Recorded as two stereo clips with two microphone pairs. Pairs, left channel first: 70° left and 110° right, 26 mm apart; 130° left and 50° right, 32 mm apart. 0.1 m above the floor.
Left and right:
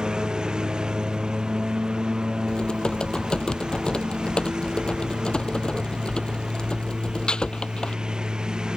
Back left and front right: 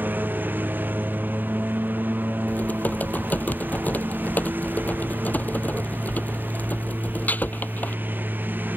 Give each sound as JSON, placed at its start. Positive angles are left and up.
{"t": 0.0, "sound": "a lawn mower", "azimuth_deg": -55}
{"t": 2.5, "sound": "typing on a keyboard", "azimuth_deg": 120}